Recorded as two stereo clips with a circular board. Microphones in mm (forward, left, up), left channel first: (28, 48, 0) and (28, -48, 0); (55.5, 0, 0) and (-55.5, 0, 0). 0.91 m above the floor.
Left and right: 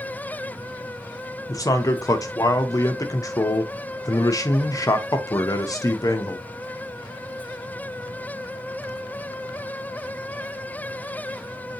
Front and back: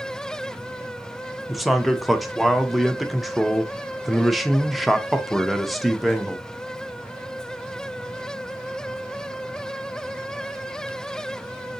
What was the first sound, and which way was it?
A man speaking, 90° left.